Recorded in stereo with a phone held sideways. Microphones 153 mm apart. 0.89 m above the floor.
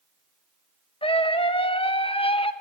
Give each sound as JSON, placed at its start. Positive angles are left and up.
{"t": 1.0, "sound": "a scream", "side_deg": 40, "distance_m": 1.1}